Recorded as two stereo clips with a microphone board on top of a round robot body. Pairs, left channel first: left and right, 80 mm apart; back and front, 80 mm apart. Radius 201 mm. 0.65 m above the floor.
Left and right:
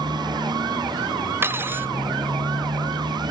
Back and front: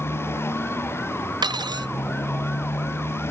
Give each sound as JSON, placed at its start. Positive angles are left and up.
{"t": 0.0, "sound": "a motorcycle", "azimuth_deg": -120}
{"t": 1.4, "sound": "cutlery clinking", "azimuth_deg": -30}